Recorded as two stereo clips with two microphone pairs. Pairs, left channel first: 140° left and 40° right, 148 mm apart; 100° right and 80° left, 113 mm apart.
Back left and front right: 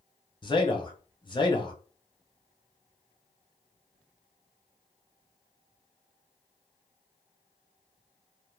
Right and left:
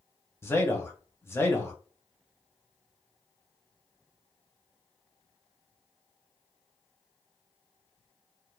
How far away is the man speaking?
About 1.0 m.